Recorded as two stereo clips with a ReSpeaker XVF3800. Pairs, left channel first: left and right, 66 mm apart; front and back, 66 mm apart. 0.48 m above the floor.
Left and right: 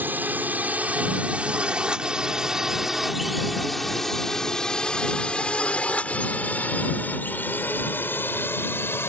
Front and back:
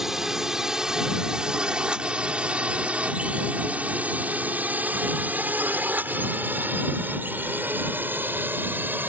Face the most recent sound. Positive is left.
turn(degrees=130)